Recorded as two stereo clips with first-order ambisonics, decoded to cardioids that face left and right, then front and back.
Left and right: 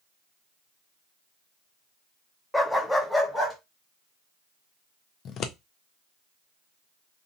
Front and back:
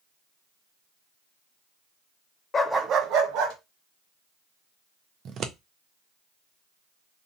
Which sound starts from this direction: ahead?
A dog barking, at 2.5 s.